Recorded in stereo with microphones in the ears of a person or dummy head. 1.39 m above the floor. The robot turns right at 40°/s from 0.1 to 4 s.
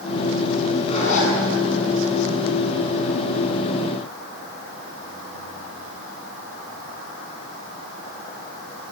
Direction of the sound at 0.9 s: 35° left (ahead or behind).